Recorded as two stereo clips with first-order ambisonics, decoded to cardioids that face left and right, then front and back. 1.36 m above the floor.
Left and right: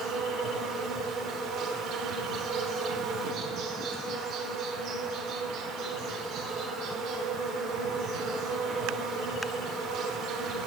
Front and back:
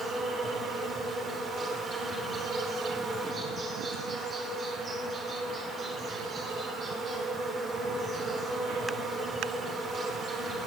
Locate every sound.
0.0 s an insect: 120° right, 1.3 m